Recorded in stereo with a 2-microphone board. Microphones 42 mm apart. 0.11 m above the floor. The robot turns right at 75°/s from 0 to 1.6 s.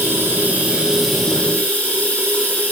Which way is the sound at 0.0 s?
80° right.